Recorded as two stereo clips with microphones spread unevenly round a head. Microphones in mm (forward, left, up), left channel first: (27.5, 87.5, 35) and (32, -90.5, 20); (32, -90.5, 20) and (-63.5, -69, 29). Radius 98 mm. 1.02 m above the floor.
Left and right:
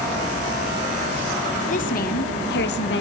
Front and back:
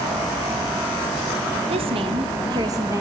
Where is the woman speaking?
140° left, 1.2 m; by 3.0 s 95° left, 1.0 m.